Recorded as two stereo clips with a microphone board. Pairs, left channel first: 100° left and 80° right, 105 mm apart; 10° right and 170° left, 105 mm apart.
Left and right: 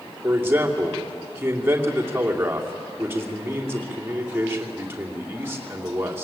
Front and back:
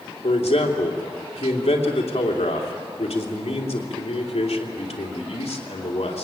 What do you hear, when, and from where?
0.2 s a man speaking: 10° right, 3 m